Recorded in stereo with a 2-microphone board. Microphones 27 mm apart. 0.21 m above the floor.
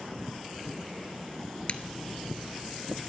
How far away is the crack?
About 0.6 m.